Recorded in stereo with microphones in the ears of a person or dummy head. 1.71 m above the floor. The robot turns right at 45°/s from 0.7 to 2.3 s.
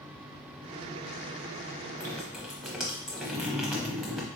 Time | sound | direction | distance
2.0 | dripping | 15° left (ahead or behind) | 0.7 m